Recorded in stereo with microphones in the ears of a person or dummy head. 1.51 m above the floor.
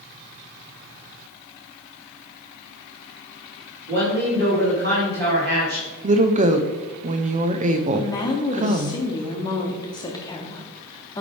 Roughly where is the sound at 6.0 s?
Right.